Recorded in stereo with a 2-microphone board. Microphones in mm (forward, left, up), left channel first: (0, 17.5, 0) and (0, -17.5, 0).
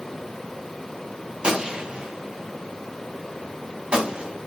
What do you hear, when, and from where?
1.4 s a gunshot: 30° right (ahead or behind), 2.5 m